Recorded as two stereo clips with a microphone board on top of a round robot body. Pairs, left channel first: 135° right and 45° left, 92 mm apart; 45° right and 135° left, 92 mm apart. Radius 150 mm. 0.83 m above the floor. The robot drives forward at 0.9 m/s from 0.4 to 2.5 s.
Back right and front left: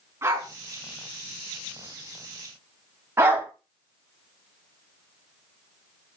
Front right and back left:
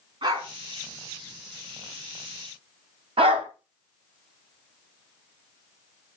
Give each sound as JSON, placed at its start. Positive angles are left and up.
{"t": 0.2, "sound": "a dog barking", "azimuth_deg": 105, "distance_m": 4.5}
{"t": 3.2, "sound": "a dog barking", "azimuth_deg": 110, "distance_m": 1.4}